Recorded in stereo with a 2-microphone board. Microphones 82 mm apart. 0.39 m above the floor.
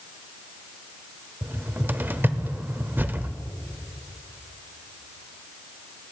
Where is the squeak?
No squeak in this recording.